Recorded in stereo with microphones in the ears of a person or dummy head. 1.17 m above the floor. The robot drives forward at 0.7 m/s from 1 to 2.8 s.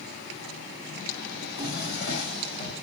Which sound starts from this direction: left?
A drawer, at 1.4 s.